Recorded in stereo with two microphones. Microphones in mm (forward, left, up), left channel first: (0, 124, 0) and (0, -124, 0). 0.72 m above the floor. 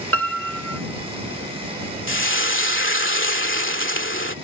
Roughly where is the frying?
Left.